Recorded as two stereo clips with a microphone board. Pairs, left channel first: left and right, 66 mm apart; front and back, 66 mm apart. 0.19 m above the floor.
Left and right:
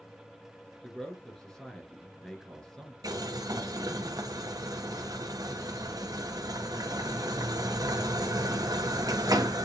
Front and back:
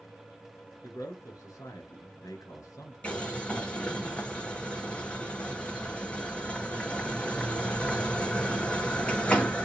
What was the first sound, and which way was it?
A man speaking, 10° left.